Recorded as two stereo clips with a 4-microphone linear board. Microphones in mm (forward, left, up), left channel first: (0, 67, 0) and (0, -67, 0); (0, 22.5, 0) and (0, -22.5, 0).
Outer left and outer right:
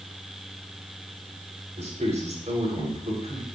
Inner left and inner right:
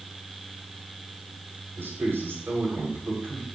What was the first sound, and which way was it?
A man speaking, 60° right (ahead or behind).